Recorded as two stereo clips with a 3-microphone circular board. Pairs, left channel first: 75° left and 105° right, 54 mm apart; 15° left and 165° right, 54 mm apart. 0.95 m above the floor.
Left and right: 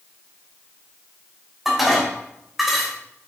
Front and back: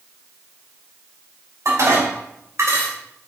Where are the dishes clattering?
170° left, 3 m.